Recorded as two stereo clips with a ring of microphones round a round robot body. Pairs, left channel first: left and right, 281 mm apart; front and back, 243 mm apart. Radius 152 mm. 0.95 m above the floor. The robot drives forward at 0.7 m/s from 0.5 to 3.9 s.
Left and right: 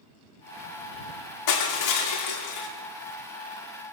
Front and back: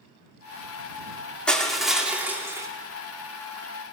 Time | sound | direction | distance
1.5 | crushing | 85° left | 3 m